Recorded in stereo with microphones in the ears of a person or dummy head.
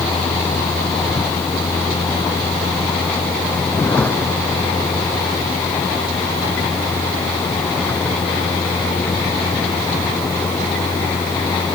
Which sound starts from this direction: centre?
A vehicle, at 0.0 s.